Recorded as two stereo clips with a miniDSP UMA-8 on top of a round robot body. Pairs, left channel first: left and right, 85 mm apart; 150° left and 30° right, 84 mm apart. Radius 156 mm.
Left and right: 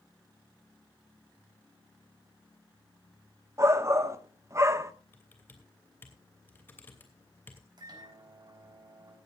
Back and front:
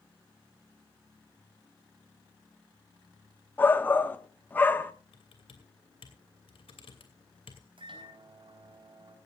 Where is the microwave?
50° right, 4 m.